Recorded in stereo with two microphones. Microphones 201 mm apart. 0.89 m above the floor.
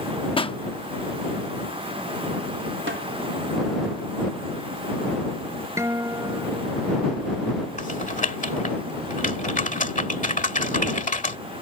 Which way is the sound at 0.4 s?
25° left (ahead or behind).